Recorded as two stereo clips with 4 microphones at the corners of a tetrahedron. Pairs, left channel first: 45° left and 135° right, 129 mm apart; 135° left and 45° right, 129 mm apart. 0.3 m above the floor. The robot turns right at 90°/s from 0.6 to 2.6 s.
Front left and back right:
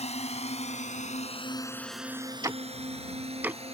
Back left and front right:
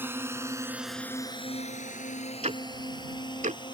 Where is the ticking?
75° right; by 3.6 s 60° right.